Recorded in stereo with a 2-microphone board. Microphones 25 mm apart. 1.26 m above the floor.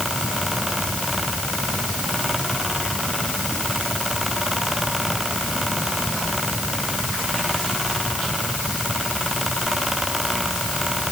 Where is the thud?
I don't hear a thud.